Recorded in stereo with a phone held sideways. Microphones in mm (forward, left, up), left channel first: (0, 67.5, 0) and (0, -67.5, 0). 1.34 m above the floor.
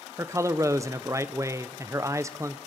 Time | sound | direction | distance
0.2 | a man speaking | 25° right (ahead or behind) | 0.6 m